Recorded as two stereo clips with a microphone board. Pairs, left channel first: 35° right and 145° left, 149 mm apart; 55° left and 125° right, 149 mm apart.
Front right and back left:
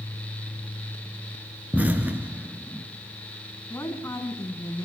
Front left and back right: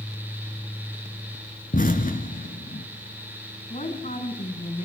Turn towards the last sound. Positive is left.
turn(degrees=35)